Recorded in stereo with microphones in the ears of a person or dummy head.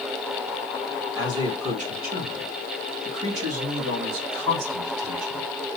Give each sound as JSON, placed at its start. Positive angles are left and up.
{"t": 1.1, "sound": "a man speaking", "side_deg": -25, "distance_m": 1.0}